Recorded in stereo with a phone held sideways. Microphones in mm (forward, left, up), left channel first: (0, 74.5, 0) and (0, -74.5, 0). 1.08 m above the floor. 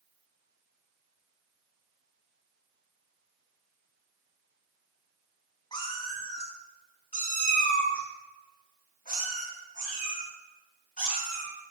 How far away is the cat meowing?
About 1.9 m.